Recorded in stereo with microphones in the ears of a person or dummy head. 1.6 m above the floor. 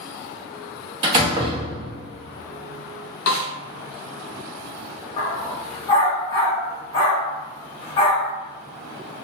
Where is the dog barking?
25° left (ahead or behind), 1.3 m.